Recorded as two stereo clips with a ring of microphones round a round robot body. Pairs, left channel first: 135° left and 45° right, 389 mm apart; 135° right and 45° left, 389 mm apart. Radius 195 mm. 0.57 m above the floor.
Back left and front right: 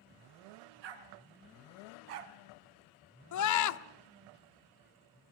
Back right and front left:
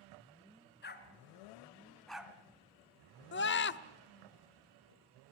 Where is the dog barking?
70° right, 2 m; by 2.4 s 40° right, 1.5 m.